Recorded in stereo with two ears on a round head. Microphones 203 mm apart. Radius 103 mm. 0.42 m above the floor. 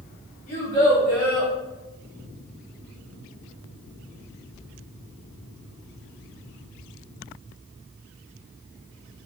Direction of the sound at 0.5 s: 35° left (ahead or behind).